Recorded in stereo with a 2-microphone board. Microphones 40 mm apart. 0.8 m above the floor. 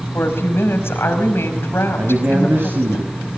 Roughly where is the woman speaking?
Left.